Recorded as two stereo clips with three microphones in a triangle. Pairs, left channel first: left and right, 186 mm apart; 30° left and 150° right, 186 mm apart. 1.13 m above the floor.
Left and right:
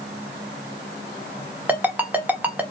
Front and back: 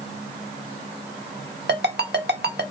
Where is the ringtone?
170° right, 1.0 m.